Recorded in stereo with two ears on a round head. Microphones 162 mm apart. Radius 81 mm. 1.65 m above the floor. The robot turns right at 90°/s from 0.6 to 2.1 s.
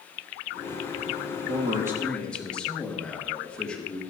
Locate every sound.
1.5 s a man speaking: 50° right, 2.5 m; by 4.0 s 5° left, 2.5 m